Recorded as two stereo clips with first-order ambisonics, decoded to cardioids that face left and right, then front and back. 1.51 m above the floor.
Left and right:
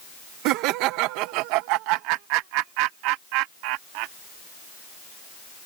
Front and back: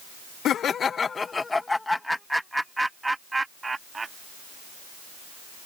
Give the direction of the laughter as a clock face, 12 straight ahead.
2 o'clock.